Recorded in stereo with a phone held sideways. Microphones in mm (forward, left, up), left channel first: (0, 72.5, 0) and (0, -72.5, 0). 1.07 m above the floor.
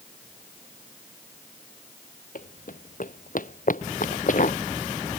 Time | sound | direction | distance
2.4 | running footsteps | 70° left (ahead or behind) | ?